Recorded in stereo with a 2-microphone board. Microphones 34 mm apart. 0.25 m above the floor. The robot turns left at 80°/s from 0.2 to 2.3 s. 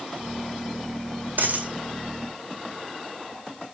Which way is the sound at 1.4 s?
55° right (ahead or behind).